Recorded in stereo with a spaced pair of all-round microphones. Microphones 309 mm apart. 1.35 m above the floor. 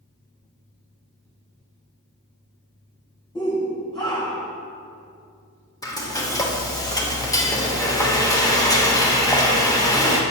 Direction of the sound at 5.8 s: 10° left (ahead or behind).